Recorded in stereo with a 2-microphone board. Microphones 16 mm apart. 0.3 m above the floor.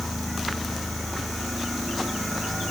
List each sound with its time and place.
Only background noise.